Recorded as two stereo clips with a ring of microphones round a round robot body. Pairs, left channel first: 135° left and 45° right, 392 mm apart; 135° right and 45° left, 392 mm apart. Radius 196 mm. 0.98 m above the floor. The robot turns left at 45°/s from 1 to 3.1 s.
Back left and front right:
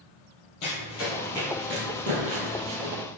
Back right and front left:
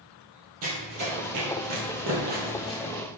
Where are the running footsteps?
95° left, 1.8 m; by 3.0 s 65° right, 1.9 m.